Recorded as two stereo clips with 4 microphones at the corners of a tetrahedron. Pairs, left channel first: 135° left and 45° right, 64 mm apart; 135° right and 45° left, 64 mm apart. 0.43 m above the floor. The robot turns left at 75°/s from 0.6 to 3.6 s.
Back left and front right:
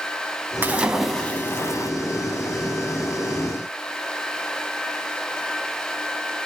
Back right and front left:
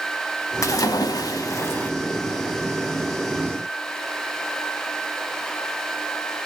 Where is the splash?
105° right, 0.6 m; by 1.9 s 160° left, 0.6 m.